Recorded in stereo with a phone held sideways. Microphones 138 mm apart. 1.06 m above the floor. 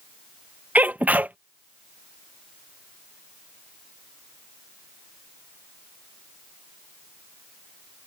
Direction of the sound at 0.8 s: 10° right (ahead or behind).